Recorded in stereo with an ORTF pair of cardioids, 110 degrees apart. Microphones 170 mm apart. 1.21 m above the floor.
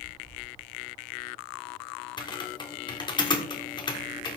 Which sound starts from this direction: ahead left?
Typing on a keyboard, at 2.2 s.